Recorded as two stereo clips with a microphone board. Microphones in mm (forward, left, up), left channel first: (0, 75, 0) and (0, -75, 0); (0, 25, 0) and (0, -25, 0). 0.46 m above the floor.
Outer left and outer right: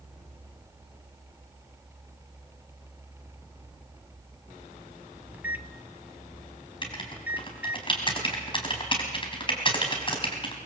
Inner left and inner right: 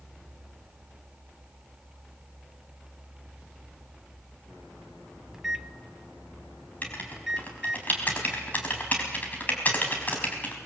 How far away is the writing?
About 4 m.